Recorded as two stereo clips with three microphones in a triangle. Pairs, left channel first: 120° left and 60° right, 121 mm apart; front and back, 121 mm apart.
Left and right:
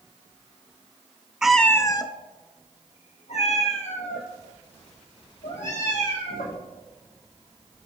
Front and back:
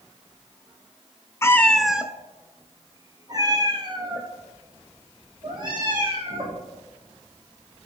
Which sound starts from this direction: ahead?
A cat meowing, at 1.4 s.